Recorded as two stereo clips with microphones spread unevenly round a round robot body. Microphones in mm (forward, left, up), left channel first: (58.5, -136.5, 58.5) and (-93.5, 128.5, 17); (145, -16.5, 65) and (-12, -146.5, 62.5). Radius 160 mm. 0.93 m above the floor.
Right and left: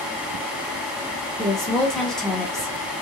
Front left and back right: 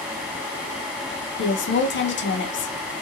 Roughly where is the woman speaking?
Ahead left.